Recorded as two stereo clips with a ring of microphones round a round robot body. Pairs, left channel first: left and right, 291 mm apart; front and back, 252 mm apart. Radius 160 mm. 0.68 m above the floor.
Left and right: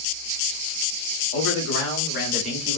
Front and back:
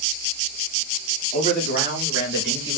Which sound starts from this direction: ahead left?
A man speaking, at 1.3 s.